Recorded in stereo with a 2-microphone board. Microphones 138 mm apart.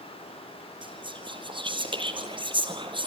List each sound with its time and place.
0.8 s whispering: 35° right (ahead or behind), 3 m